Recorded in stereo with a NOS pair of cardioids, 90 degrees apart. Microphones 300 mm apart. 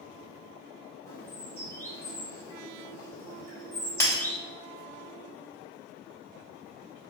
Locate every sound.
1.1 s a bird: 10° left, 1.5 m
4.0 s breaking glass: 10° left, 1.7 m